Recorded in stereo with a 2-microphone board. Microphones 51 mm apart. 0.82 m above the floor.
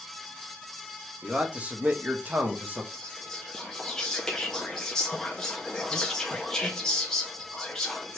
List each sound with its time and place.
1.2 s a man speaking: 20° right (ahead or behind), 1.0 m; by 2.8 s 30° right (ahead or behind), 0.9 m
2.9 s whispering: 10° left (ahead or behind), 0.5 m